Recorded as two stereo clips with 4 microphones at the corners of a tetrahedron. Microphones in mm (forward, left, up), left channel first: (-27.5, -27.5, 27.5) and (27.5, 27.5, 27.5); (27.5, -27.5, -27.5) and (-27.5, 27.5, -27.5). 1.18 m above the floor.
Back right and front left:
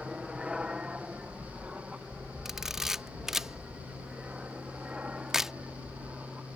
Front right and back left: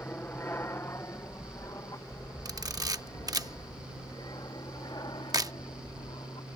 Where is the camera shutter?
130° left.